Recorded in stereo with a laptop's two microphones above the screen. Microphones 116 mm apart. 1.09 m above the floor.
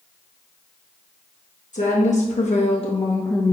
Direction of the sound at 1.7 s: 80° left.